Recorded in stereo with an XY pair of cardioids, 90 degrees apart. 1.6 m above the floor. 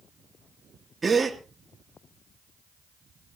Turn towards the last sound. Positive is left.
turn(degrees=-30)